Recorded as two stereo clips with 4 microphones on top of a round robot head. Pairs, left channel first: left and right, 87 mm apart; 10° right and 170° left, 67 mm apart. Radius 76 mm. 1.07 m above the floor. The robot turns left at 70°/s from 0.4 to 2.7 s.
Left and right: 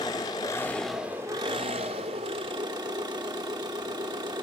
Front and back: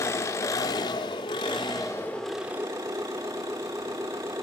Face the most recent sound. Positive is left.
turn(degrees=-125)